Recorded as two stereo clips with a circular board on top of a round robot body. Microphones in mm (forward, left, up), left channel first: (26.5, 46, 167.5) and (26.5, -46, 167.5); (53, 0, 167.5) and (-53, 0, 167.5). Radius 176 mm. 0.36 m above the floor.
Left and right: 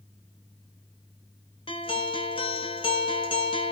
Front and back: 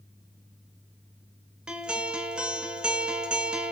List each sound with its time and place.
1.7 s a guitar: 100° left, 3.5 m